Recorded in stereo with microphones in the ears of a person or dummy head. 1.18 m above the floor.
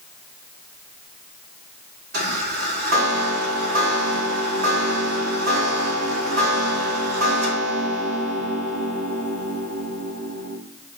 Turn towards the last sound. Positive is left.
turn(degrees=-65)  # may be behind; listen again after turning